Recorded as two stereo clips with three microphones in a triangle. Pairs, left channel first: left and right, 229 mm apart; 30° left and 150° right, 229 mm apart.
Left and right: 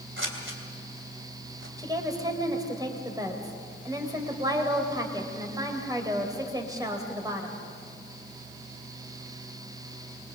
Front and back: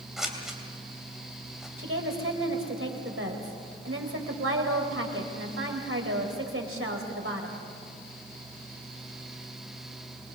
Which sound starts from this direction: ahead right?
Scissors, at 0.2 s.